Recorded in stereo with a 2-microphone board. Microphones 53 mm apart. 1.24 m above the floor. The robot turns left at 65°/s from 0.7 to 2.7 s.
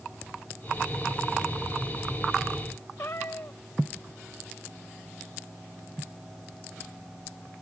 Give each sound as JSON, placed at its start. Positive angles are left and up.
{"t": 3.0, "sound": "a cat meowing", "side_deg": 50}